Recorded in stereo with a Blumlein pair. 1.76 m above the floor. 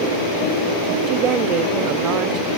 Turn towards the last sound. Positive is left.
turn(degrees=-35)